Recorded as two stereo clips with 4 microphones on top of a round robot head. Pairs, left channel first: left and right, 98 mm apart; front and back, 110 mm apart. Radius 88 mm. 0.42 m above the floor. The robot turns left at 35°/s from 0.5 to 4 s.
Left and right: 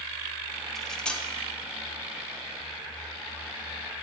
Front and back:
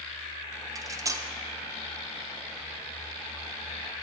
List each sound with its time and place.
0.8 s cutlery clinking: 175° left, 0.7 m; by 1.3 s 155° left, 0.7 m